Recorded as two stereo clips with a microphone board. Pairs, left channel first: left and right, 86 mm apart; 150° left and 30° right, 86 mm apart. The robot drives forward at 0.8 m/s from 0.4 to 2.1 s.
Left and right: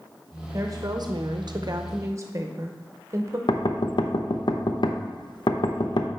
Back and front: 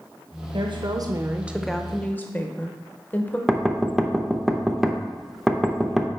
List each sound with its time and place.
0.5 s a woman speaking: 40° right, 0.9 m; by 3.4 s 140° right, 0.9 m
3.5 s knocking: 60° left, 0.6 m